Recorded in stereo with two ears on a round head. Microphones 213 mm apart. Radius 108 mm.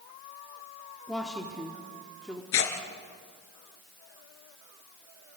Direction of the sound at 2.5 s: 60° left (ahead or behind).